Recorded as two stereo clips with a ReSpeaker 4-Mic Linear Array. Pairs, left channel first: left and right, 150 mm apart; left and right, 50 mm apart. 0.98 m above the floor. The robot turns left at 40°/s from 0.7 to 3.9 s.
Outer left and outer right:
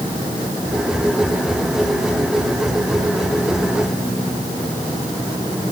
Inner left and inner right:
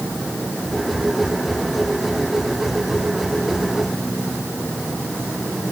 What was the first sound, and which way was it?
Only background noise.